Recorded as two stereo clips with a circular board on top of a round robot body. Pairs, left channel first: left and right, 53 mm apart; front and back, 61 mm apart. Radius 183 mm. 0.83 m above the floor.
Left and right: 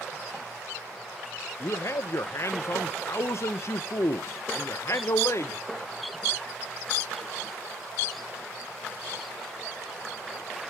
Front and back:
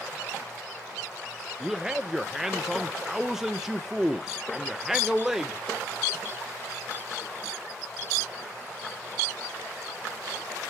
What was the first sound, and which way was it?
A man speaking, 100° left.